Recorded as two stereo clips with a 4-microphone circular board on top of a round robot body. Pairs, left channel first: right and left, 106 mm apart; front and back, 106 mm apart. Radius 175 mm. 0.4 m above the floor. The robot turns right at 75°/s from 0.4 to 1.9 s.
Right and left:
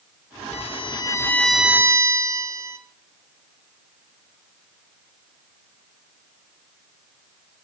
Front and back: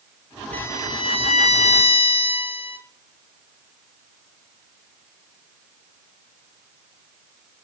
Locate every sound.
0.5 s a violin: 75° right, 1.4 m; by 2.8 s 30° left, 1.4 m